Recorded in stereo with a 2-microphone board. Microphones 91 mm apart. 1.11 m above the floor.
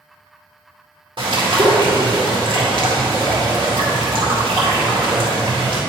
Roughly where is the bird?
Right.